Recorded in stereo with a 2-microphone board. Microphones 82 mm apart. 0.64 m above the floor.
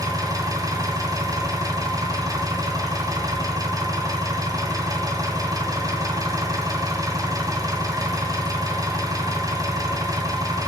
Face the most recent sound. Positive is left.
turn(degrees=-40)  # may be behind; listen again after turning